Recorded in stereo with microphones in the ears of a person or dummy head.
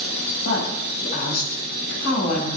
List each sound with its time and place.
0.4 s a woman speaking: 60° left (ahead or behind), 6 m